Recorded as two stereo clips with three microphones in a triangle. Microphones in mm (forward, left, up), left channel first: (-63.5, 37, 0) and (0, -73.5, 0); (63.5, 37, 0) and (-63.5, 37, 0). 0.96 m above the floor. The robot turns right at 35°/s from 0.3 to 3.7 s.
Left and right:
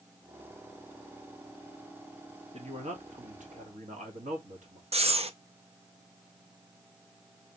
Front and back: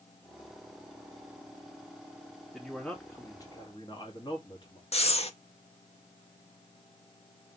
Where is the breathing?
30° right, 0.6 m.